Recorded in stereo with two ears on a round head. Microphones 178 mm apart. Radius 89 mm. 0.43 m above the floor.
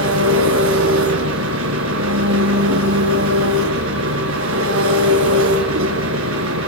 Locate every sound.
0.0 s an engine running: 75° right (ahead or behind), 5 m